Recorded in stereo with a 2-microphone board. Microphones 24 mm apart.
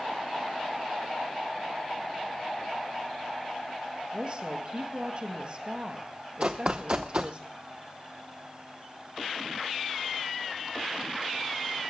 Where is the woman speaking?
45° right (ahead or behind), 2.5 m.